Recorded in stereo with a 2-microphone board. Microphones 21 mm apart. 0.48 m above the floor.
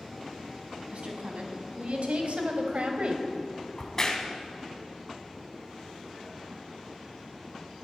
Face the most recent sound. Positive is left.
turn(degrees=25)  # may be behind; listen again after turning